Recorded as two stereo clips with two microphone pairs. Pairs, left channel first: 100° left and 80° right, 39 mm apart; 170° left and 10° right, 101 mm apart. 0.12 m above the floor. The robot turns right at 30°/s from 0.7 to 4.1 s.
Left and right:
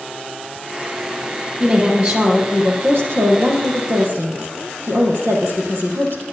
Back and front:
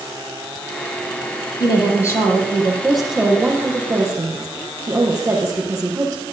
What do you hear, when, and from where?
1.6 s a woman speaking: 145° right, 4.5 m; by 6.2 s 70° right, 4.5 m